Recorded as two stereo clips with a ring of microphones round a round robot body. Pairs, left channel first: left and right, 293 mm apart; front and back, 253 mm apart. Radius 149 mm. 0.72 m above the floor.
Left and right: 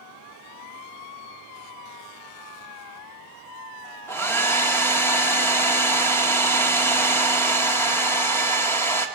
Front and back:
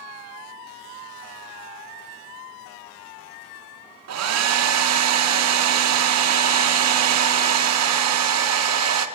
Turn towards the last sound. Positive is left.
turn(degrees=170)